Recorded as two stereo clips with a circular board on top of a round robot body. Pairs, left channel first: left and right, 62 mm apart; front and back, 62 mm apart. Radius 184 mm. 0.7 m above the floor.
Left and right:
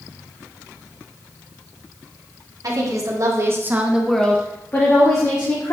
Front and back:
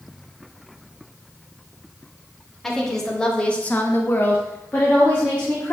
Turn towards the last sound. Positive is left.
turn(degrees=70)